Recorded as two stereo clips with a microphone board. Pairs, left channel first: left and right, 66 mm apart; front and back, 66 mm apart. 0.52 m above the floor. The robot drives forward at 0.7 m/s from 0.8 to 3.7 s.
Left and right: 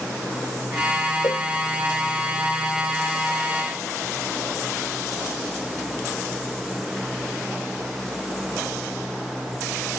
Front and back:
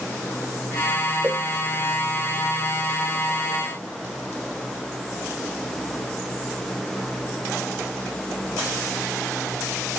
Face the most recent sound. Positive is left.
turn(degrees=130)